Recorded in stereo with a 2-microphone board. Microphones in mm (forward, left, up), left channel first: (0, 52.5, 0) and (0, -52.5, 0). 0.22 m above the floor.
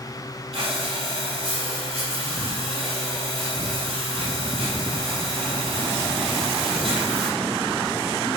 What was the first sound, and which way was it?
Breathing, 80° right.